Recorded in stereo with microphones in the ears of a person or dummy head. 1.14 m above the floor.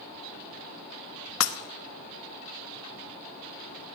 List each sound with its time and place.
1.4 s breaking glass: 80° left, 0.9 m